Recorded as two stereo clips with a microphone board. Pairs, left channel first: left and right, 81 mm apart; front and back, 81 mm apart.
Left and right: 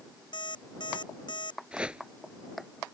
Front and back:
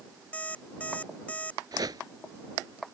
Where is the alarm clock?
75° left.